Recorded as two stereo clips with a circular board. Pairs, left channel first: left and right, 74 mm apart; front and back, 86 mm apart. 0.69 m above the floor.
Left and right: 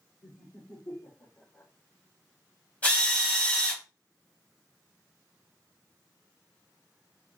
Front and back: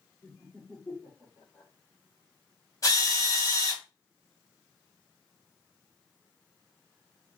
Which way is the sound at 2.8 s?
25° left.